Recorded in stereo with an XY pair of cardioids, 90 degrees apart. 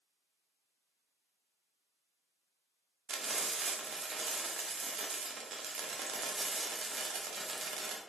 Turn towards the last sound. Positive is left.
turn(degrees=-55)